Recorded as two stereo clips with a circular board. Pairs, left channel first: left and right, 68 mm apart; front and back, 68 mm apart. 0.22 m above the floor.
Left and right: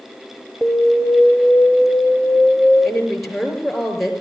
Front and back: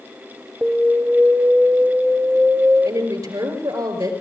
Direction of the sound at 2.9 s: Straight behind.